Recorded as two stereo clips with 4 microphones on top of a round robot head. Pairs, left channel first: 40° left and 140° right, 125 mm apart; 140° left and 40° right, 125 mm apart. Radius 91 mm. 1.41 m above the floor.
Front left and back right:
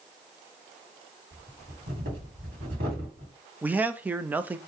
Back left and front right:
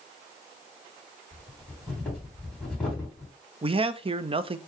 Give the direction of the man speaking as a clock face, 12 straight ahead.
2 o'clock.